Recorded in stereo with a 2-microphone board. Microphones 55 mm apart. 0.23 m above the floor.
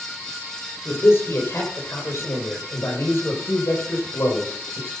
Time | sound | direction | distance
0.8 | a man speaking | 50° left (ahead or behind) | 6 m